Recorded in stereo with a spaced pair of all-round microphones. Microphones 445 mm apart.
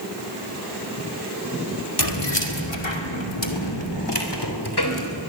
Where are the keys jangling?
60° left (ahead or behind), 2.5 m; by 5.0 s 55° left (ahead or behind), 3.5 m.